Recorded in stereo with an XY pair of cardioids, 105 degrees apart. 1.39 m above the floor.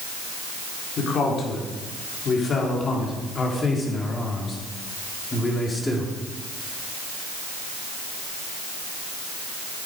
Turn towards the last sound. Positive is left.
turn(degrees=15)